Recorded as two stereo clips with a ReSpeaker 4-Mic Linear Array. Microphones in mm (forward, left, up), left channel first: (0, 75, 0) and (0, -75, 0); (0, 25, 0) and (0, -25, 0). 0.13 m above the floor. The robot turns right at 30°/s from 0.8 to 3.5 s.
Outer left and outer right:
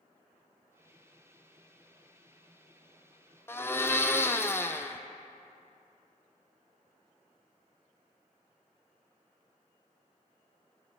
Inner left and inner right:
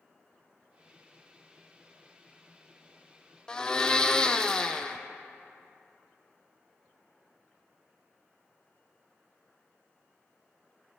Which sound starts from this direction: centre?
A blender, at 3.5 s.